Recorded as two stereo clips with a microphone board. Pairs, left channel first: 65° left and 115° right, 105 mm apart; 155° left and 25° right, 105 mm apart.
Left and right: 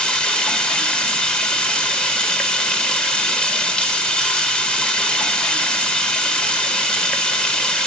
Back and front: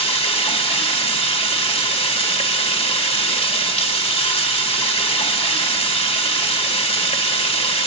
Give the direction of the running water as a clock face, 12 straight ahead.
7 o'clock.